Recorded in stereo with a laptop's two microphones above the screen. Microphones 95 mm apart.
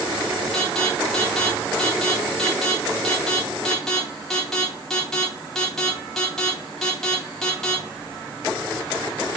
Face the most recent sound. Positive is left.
turn(degrees=5)  # may be behind; listen again after turning